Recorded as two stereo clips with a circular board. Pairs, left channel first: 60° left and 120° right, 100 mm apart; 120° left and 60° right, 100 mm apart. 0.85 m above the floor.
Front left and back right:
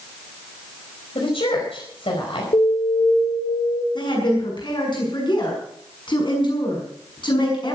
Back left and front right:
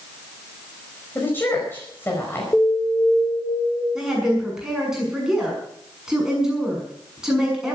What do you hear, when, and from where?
1.1 s a woman speaking: 55° left, 5 m
2.5 s an alarm: 50° left, 4.5 m
4.0 s a woman speaking: 25° left, 7 m